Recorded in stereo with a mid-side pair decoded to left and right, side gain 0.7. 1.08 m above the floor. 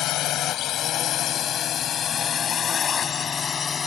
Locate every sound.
0.0 s a drone: 55° left; by 3.9 s 30° left